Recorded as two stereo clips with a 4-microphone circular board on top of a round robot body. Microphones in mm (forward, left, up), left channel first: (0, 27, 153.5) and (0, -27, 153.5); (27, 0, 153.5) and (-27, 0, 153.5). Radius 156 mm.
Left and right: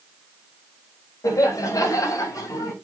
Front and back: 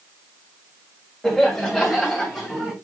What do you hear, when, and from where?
1.2 s laughter: 85° left, 4 m; by 2.7 s 100° left, 3.5 m